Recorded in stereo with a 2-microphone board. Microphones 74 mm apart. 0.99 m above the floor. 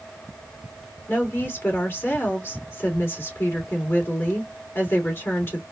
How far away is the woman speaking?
About 2.5 m.